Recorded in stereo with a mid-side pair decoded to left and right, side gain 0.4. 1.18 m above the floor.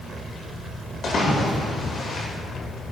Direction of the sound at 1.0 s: 55° left.